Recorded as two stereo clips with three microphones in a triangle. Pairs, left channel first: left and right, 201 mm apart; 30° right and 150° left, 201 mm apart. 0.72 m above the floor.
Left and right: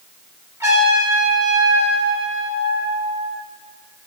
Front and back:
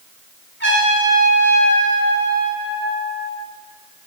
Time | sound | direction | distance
0.6 | a trumpet | 15° right | 3 m